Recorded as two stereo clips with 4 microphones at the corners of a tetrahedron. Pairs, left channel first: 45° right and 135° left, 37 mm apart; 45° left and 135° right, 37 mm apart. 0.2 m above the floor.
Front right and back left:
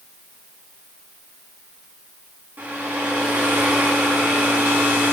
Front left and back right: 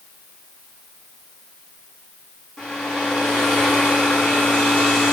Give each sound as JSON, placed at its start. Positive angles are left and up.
{"t": 2.6, "sound": "a hair dryer", "azimuth_deg": 115, "distance_m": 4.5}